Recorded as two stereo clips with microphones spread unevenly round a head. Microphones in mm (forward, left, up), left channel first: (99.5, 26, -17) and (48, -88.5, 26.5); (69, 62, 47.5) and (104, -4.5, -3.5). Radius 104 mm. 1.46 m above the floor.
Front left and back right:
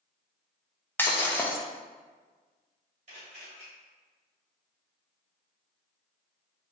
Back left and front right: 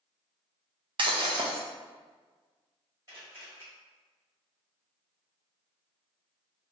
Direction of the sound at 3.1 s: 145° right.